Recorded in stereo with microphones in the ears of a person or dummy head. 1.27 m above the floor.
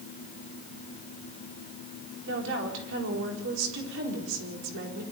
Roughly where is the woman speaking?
Right.